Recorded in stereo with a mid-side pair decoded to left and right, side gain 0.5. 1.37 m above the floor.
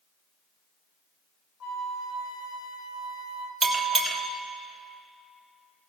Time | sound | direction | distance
1.6 | a flute | 65° left | 1.6 m
3.6 | a bell | 15° right | 2 m